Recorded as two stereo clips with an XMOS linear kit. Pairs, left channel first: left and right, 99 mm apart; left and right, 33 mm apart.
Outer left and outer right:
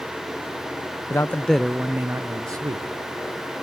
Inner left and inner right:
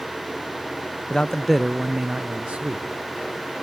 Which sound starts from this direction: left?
A man speaking, at 1.1 s.